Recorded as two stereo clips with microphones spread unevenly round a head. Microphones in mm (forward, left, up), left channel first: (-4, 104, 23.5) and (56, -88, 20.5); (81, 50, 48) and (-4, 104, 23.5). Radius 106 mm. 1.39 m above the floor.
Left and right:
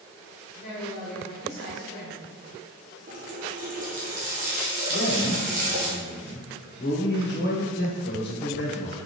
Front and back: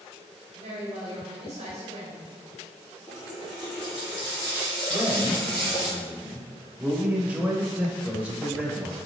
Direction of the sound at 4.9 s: 70° left.